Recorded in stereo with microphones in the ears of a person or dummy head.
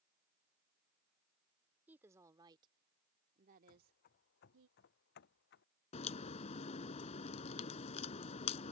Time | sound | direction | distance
1.9 | a woman speaking | 5° right (ahead or behind) | ?
3.7 | running footsteps | 50° left (ahead or behind) | ?
5.9 | a crack | 40° left (ahead or behind) | ?